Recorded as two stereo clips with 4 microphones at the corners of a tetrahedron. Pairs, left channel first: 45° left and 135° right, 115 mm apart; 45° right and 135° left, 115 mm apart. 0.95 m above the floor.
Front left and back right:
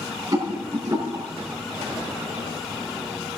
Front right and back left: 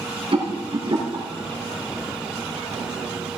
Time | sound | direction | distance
0.3 | a rattle | 170° left | 7.5 m